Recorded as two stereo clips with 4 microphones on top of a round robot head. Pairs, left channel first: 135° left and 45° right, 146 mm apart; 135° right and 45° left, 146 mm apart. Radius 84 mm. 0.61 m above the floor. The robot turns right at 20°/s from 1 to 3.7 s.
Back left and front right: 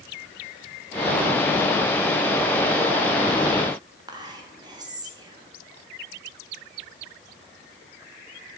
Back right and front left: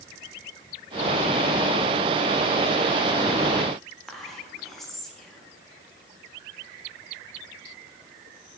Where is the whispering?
50° right, 1.3 m.